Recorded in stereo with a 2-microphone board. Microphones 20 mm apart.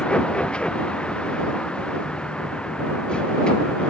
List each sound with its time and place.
0.0 s a vehicle: 50° left (ahead or behind); by 3.9 s 45° left (ahead or behind)